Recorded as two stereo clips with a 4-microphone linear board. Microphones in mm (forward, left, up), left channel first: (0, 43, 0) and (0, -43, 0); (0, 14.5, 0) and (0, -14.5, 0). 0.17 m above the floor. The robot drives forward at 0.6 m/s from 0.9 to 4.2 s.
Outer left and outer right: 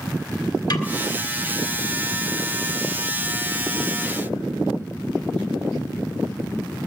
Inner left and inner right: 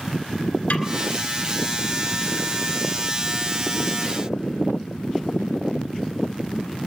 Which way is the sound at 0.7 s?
55° left (ahead or behind).